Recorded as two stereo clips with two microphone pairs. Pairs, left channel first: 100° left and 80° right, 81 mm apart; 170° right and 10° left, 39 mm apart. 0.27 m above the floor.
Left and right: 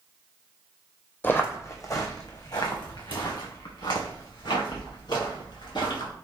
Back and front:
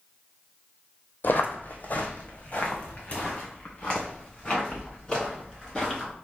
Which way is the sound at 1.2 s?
165° left.